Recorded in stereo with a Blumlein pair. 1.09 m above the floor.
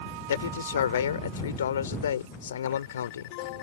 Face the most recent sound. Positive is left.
turn(degrees=65)